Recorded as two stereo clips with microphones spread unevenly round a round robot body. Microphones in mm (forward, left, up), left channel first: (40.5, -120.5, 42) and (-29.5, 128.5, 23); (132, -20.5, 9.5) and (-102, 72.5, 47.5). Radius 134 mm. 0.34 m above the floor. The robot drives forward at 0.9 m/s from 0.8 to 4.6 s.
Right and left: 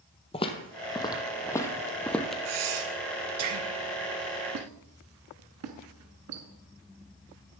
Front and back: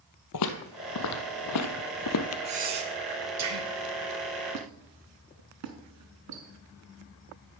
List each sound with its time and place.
0.3 s footsteps: 10° right, 0.7 m; by 2.4 s 15° left, 0.6 m
2.5 s breathing: 90° left, 1.0 m; by 3.7 s 140° left, 1.5 m
4.5 s a squeak: 130° left, 1.0 m; by 6.5 s 135° left, 1.0 m